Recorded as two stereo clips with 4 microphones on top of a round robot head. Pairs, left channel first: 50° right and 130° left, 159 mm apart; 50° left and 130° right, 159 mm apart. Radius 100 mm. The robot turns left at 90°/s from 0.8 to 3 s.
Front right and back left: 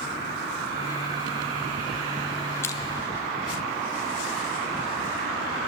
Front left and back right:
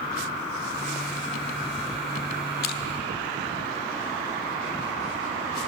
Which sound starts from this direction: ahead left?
Crushing, at 2.6 s.